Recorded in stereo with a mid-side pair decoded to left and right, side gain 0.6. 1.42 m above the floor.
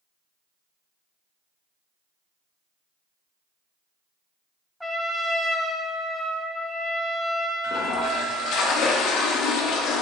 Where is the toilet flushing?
65° left, 0.6 m.